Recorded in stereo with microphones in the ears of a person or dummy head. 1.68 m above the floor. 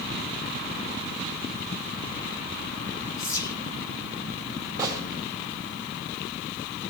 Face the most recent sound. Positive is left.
turn(degrees=-15)  # may be behind; listen again after turning